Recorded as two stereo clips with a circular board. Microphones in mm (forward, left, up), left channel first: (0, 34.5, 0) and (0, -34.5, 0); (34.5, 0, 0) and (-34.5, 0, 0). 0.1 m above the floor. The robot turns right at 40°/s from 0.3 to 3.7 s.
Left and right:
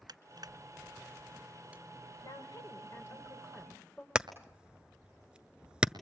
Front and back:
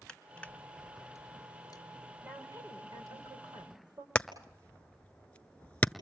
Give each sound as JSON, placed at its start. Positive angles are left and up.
{"t": 0.1, "sound": "crushing", "azimuth_deg": -80, "distance_m": 1.2}
{"t": 2.2, "sound": "a woman speaking", "azimuth_deg": 115, "distance_m": 7.5}
{"t": 4.2, "sound": "hammering", "azimuth_deg": -35, "distance_m": 1.0}